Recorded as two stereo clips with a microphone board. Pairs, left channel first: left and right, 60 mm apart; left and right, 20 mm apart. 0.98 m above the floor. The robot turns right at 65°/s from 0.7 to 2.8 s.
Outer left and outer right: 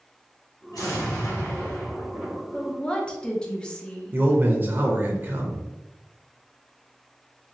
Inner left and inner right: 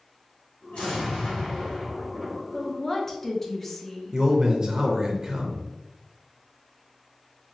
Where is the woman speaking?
25° left (ahead or behind), 0.6 m; by 4.2 s 15° left (ahead or behind), 0.6 m.